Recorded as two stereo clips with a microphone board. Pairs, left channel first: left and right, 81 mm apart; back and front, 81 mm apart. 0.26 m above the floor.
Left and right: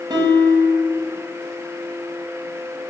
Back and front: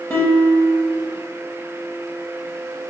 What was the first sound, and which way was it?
A guitar, 120° right.